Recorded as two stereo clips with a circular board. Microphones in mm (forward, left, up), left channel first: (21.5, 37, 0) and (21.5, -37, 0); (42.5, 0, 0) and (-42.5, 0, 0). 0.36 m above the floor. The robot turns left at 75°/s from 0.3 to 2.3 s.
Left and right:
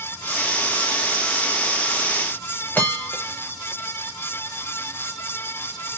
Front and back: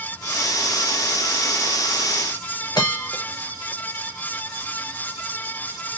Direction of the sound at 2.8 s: 30° left.